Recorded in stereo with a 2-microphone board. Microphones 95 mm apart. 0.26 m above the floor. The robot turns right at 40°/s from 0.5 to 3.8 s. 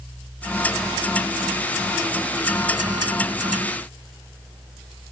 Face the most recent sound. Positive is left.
No sound to turn to.